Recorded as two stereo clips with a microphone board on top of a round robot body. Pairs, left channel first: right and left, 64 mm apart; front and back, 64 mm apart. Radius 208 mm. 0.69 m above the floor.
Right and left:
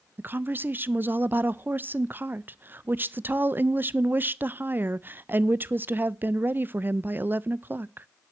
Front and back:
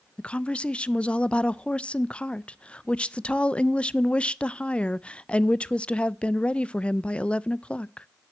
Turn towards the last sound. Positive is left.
turn(degrees=60)